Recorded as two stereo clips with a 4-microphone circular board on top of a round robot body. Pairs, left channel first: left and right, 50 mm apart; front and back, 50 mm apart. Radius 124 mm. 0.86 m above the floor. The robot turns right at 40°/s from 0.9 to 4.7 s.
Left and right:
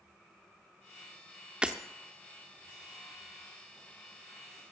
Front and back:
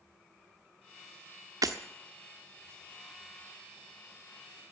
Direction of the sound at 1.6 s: 165° right.